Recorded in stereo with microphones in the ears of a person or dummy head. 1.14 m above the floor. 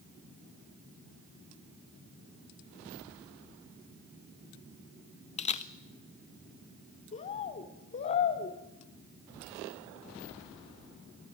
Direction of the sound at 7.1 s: 40° left (ahead or behind).